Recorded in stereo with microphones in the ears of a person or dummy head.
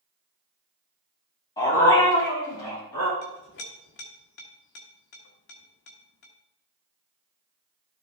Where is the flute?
I don't hear a flute.